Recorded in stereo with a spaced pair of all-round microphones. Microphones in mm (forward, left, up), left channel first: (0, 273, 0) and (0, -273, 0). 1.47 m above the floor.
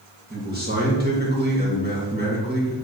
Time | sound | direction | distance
0.3 | a man speaking | 15° right (ahead or behind) | 2 m